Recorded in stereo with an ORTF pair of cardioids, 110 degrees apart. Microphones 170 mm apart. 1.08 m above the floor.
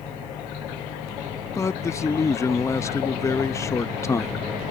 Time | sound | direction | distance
1.6 | a man speaking | 15° left | ?